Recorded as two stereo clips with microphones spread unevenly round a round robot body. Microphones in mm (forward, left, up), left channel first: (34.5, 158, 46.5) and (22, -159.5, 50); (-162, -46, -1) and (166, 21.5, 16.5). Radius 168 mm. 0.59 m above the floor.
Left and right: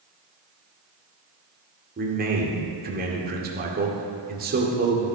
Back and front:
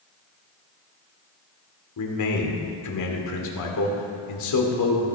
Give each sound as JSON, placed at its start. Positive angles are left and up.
{"t": 2.0, "sound": "a man speaking", "azimuth_deg": -150, "distance_m": 1.9}